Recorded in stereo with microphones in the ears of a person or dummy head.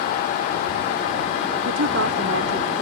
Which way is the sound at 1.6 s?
85° right.